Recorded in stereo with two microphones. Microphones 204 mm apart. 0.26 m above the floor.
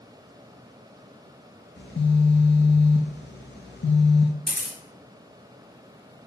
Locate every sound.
1.8 s a phone buzzing: 65° left (ahead or behind), 0.7 m
4.5 s a camera shutter: 30° right (ahead or behind), 1.5 m